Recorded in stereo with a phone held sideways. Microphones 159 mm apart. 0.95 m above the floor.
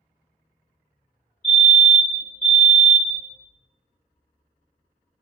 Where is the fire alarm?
50° left (ahead or behind), 1.7 m.